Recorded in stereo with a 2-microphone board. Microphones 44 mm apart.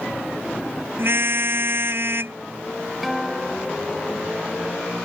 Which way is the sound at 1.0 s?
55° right (ahead or behind).